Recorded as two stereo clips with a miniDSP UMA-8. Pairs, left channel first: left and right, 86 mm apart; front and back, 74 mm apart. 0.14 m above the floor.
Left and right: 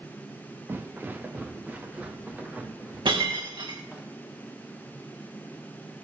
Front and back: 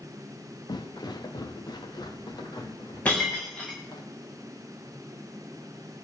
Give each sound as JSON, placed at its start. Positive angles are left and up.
{"t": 0.7, "sound": "footsteps", "azimuth_deg": -25, "distance_m": 1.1}
{"t": 3.0, "sound": "breaking glass", "azimuth_deg": -70, "distance_m": 4.5}